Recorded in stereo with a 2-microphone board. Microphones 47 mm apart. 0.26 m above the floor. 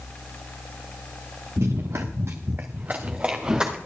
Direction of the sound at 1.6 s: 80° right.